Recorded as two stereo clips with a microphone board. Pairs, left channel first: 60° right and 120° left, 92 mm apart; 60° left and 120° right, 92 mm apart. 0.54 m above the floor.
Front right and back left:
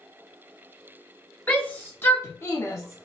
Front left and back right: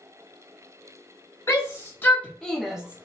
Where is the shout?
10° left, 1.6 m; by 3.1 s 65° right, 1.0 m.